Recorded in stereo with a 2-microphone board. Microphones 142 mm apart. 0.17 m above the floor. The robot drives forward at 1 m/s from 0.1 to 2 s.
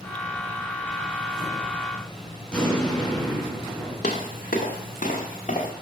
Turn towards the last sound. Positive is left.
turn(degrees=60)  # may be behind; listen again after turning